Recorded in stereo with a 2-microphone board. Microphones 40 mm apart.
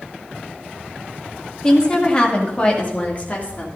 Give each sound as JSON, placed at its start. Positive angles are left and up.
{"t": 1.6, "sound": "a woman speaking", "side_deg": 20, "distance_m": 2.0}